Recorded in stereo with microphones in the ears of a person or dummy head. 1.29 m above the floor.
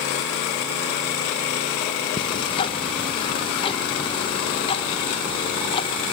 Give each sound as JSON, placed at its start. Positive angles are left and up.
{"t": 2.2, "sound": "ticking", "side_deg": 30, "distance_m": 1.5}